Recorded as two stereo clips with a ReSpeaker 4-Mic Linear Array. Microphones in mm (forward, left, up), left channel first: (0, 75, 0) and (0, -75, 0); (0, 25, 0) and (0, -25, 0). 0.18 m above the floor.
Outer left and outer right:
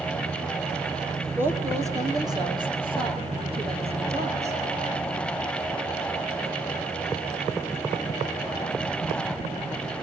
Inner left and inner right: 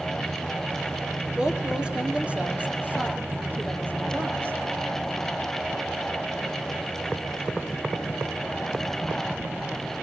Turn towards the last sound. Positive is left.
turn(degrees=-45)  # may be behind; listen again after turning